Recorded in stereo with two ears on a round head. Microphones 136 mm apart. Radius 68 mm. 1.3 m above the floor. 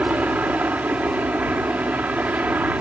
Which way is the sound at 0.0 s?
10° right (ahead or behind).